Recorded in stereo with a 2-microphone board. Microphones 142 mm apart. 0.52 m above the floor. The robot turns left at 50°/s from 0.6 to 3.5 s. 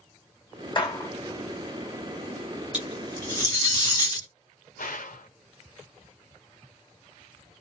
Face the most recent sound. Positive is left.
turn(degrees=75)  # may be behind; listen again after turning